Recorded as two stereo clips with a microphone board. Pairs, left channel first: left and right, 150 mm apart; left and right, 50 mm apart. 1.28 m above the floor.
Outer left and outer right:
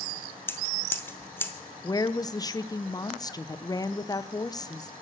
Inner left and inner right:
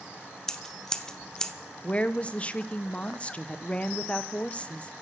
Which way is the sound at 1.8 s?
25° left (ahead or behind).